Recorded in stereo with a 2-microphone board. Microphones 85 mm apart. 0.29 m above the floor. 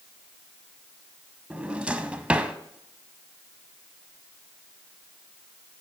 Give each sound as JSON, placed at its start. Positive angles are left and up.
{"t": 1.5, "sound": "a drawer", "side_deg": -15, "distance_m": 0.5}